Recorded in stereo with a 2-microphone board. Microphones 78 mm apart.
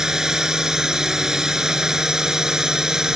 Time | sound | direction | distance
0.0 | a drone | 5° right (ahead or behind) | ?